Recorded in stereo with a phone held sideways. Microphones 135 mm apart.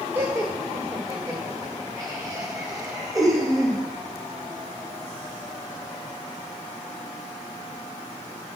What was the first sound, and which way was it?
Laughter, 15° right (ahead or behind).